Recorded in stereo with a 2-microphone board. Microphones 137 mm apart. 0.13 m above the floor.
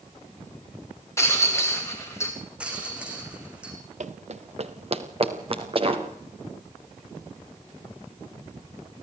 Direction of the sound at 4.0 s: 60° right (ahead or behind).